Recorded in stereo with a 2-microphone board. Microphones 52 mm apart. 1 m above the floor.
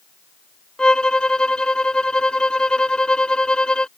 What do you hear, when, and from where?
0.8 s a violin: 15° left (ahead or behind)